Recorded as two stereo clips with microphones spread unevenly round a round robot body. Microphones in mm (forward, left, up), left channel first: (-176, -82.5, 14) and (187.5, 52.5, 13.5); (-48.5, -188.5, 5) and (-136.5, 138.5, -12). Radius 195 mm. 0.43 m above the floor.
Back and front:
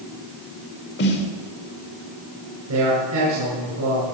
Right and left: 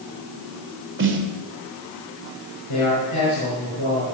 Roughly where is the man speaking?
Ahead right.